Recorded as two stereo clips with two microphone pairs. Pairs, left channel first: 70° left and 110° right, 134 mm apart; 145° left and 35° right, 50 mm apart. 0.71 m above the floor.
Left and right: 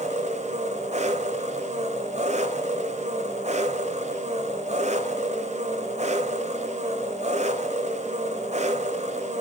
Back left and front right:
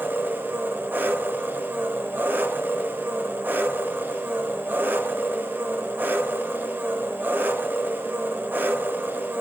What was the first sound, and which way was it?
An engine running, 85° right.